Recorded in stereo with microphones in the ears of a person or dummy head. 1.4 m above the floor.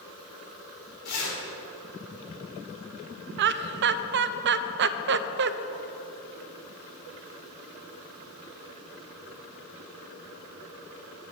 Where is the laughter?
55° right (ahead or behind), 0.5 m.